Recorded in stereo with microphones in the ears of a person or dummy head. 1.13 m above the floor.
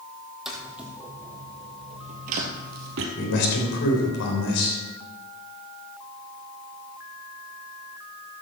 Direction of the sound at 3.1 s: 65° left (ahead or behind).